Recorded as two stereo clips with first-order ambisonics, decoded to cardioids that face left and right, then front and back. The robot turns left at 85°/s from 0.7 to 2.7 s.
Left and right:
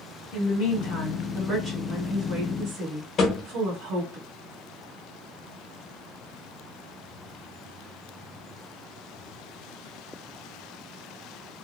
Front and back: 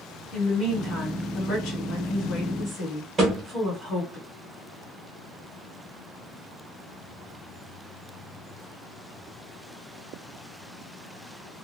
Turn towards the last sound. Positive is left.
turn(degrees=125)